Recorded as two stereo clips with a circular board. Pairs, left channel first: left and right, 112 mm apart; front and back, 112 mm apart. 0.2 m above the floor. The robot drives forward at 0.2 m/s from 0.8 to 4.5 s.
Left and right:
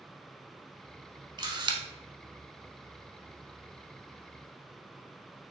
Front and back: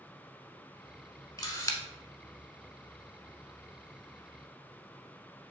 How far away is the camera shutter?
About 0.9 m.